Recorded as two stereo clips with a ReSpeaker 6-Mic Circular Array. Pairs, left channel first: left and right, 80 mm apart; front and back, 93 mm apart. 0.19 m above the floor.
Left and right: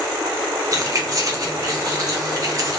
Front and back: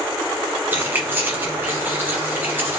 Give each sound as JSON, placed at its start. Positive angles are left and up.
{"t": 0.7, "sound": "keys jangling", "azimuth_deg": -120, "distance_m": 1.0}